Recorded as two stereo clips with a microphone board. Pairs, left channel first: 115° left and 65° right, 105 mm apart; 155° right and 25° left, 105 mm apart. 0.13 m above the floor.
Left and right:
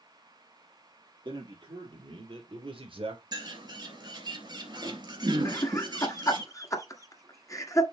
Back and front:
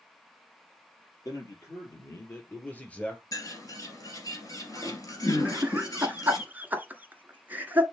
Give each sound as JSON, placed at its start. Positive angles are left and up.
{"t": 1.2, "sound": "a man speaking", "azimuth_deg": -105, "distance_m": 3.5}
{"t": 3.3, "sound": "a bird", "azimuth_deg": -110, "distance_m": 2.5}
{"t": 5.5, "sound": "laughter", "azimuth_deg": 85, "distance_m": 1.6}